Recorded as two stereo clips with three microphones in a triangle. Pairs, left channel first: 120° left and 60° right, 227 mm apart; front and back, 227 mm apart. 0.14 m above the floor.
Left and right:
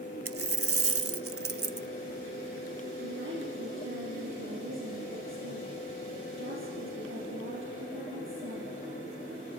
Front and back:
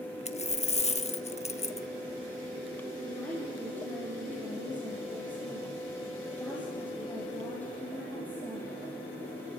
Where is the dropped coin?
60° right, 0.6 m.